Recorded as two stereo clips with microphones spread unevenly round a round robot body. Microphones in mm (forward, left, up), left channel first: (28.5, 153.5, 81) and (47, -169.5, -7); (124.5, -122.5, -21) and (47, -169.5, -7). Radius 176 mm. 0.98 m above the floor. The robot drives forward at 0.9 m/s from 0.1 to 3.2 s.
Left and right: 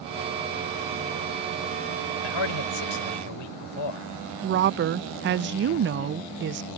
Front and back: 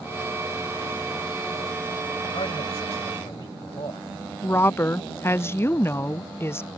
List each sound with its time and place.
2.2 s a man speaking: 90° left; by 4.1 s 100° left
4.4 s a woman speaking: 35° right